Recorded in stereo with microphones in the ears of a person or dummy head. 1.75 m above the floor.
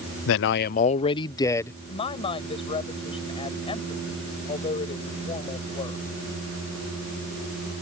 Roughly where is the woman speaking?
Left.